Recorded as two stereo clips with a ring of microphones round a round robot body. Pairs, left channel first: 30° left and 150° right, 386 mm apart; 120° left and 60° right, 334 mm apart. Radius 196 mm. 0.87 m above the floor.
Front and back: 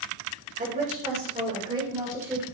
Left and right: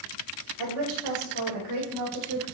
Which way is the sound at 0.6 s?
80° right.